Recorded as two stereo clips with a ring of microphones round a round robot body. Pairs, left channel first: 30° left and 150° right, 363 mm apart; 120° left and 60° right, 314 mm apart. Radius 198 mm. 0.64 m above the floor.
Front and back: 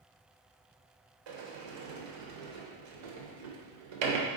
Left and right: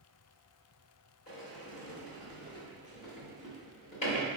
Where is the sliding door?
165° right, 0.9 m.